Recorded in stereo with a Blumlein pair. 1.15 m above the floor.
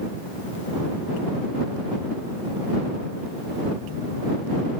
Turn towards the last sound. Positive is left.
No sound to turn to.